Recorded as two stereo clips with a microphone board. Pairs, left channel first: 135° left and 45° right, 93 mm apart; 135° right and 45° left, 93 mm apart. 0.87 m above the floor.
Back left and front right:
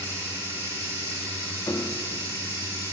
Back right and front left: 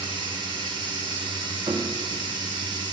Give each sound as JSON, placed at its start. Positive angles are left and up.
{"t": 0.0, "sound": "running water", "azimuth_deg": 15, "distance_m": 2.5}
{"t": 1.7, "sound": "a piano", "azimuth_deg": 80, "distance_m": 0.6}